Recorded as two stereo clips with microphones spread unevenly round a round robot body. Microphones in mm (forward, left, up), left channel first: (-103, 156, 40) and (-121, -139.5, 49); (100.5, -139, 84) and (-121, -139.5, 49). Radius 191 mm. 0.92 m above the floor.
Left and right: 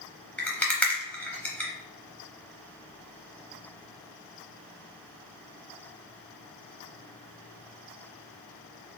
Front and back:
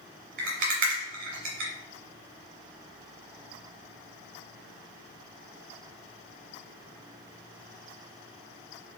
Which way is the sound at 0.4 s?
170° left.